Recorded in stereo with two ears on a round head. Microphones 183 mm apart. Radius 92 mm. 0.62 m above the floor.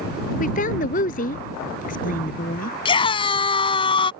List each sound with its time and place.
0.4 s a woman speaking: 40° left (ahead or behind)
2.9 s a scream: 25° left (ahead or behind)